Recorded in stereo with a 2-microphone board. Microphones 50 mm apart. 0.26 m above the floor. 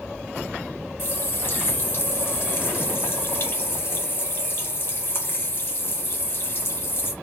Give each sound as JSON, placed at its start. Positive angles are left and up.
{"t": 1.0, "sound": "a running tap", "side_deg": 45, "distance_m": 1.1}